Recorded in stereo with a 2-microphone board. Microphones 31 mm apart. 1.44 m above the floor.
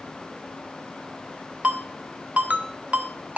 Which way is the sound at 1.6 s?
50° right (ahead or behind).